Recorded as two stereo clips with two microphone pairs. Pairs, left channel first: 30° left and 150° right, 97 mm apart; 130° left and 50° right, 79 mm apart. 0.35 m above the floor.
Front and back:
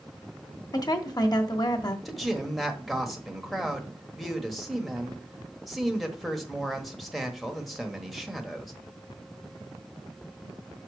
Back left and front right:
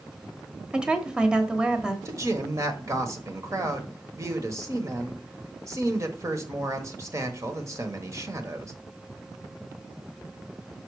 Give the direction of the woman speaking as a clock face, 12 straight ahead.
11 o'clock.